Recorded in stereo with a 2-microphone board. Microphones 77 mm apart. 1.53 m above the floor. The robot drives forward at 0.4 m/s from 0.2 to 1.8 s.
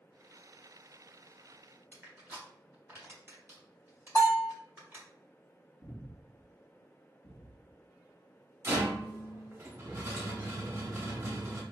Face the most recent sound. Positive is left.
turn(degrees=-30)  # may be behind; listen again after turning